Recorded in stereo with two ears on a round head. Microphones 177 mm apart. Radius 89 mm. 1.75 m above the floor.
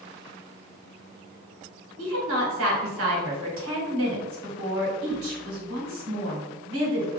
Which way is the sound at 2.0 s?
80° right.